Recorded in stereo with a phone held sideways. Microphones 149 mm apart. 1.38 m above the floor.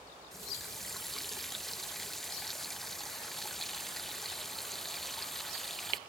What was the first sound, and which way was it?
A running tap, centre (ahead or behind).